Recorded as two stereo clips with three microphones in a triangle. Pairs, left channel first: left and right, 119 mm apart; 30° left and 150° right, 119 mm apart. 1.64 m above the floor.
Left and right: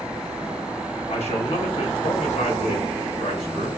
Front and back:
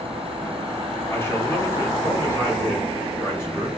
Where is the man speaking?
95° left, 0.9 m.